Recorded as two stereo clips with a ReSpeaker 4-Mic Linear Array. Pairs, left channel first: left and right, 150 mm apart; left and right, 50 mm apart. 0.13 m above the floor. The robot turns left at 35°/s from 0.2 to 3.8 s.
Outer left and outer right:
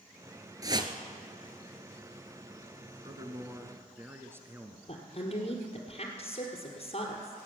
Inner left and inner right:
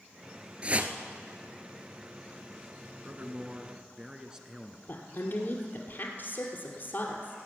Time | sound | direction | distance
0.6 | a whoosh | 25° right (ahead or behind) | 0.9 m
3.0 | a man speaking | 30° right (ahead or behind) | 1.4 m
4.9 | a woman speaking | 50° left (ahead or behind) | 2 m